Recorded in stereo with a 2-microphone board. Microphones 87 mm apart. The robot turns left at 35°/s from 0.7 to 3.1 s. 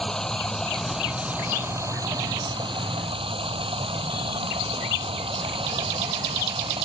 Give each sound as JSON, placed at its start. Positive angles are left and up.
{"t": 0.0, "sound": "running water", "azimuth_deg": 5}